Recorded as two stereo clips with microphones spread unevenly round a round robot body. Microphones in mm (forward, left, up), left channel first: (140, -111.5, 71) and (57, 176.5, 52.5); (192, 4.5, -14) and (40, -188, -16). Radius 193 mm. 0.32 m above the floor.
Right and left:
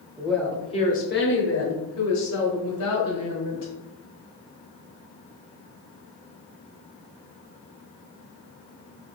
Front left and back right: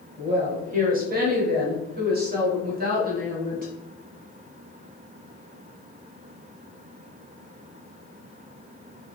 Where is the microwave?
No microwave in this recording.